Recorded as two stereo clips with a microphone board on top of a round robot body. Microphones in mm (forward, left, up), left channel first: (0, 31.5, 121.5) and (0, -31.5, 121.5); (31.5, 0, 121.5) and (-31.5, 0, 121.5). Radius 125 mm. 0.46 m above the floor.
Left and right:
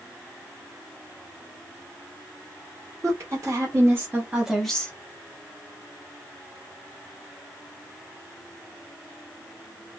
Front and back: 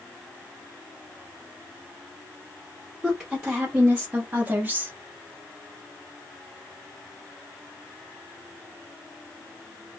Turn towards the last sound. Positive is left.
turn(degrees=140)